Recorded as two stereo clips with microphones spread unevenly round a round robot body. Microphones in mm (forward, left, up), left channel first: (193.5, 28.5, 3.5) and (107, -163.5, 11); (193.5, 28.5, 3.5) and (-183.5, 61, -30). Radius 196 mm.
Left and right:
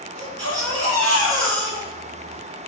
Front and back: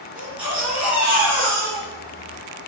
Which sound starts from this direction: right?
A baby crying, at 0.1 s.